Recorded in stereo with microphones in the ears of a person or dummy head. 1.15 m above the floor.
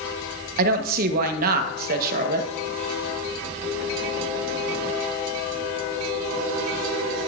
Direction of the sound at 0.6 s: 50° right (ahead or behind).